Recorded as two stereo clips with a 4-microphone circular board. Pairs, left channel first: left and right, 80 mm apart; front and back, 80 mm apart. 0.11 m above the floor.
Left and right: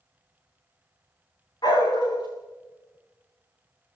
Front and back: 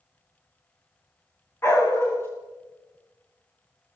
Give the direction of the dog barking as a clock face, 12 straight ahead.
10 o'clock.